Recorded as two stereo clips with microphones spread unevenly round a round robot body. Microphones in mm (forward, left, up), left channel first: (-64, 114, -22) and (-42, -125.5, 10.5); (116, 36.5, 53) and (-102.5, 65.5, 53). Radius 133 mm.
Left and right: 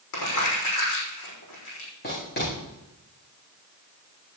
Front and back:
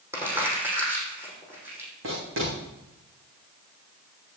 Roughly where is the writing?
Behind left.